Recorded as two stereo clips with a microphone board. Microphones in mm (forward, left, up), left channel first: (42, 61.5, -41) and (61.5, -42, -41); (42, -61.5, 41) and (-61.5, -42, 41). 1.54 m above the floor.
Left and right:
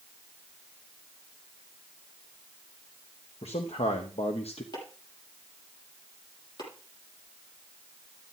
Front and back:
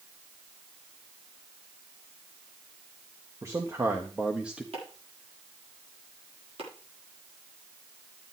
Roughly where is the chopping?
Behind left.